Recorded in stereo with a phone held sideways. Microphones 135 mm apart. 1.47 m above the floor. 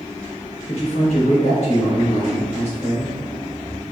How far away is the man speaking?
About 1.5 m.